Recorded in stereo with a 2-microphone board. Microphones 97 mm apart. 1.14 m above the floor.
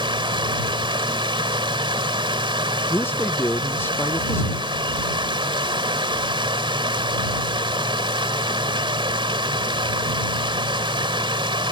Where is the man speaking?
25° left (ahead or behind).